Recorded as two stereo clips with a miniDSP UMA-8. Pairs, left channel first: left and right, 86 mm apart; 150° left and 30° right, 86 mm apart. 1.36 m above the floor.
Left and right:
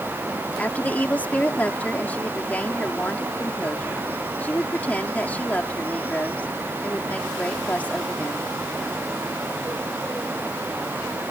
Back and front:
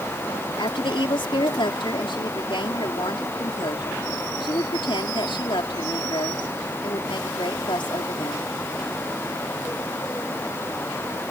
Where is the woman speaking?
165° left.